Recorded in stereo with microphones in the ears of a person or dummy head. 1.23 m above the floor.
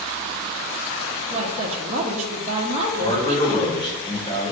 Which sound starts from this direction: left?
A man speaking, at 3.0 s.